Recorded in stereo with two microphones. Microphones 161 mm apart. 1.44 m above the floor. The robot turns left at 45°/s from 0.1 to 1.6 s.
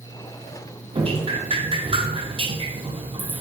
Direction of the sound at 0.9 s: 35° right (ahead or behind).